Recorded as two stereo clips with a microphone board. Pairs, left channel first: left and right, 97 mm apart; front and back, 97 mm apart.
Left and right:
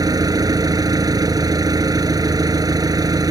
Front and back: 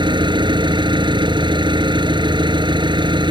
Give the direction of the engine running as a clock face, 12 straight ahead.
5 o'clock.